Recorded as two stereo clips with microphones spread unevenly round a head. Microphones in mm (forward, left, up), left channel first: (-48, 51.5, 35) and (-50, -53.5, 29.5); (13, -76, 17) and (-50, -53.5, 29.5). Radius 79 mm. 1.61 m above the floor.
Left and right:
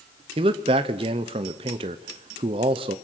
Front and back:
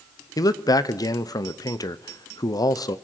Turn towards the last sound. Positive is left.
turn(degrees=-45)